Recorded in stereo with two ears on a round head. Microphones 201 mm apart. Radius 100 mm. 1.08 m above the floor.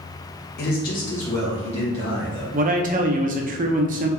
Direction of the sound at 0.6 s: 45° left (ahead or behind).